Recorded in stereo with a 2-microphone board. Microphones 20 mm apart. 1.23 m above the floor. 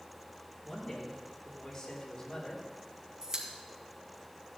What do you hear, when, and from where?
0.6 s a man speaking: 30° left (ahead or behind), 3.5 m; by 2.6 s 55° left (ahead or behind), 3 m
3.2 s a pop: 25° right (ahead or behind), 2 m